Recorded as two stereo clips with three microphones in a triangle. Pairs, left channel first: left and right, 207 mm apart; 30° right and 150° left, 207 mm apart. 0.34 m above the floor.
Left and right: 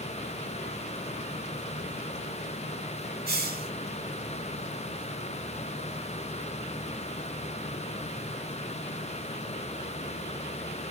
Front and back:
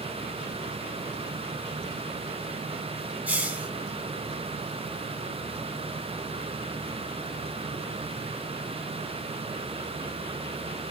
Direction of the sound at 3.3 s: 125° right.